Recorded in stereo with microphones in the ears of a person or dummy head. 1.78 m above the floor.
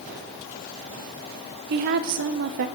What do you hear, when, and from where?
1.7 s a woman speaking: 40° right (ahead or behind), 0.9 m